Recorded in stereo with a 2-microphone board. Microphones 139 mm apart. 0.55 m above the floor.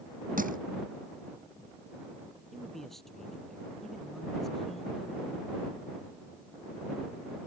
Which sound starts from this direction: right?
Crushing, at 0.4 s.